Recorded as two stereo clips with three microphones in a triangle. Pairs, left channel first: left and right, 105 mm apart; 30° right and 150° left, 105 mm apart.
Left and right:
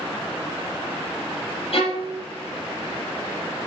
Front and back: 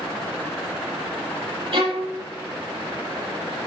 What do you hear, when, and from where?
1.7 s a violin: 120° left, 5.5 m